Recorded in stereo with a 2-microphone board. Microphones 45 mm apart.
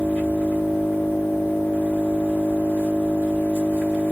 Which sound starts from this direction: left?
An engine running, at 0.0 s.